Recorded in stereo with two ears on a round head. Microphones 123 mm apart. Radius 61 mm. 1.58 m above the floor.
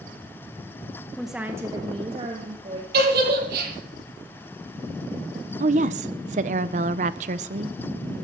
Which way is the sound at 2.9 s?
80° right.